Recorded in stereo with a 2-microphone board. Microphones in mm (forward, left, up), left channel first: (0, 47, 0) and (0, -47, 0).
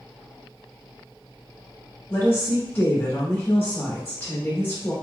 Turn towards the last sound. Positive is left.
turn(degrees=25)  # may be behind; listen again after turning